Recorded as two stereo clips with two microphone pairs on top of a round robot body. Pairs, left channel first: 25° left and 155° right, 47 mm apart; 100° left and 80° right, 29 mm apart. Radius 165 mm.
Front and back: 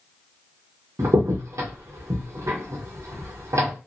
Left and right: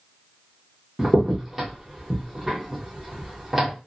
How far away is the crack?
About 0.9 m.